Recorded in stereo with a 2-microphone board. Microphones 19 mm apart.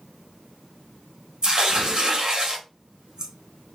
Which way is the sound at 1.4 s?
50° right (ahead or behind).